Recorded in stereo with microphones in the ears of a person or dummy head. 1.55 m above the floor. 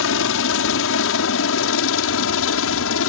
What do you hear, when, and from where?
0.0 s a helicopter: 70° left (ahead or behind)